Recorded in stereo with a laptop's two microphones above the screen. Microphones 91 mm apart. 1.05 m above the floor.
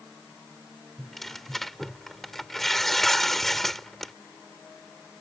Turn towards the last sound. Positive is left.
turn(degrees=5)  # may be behind; listen again after turning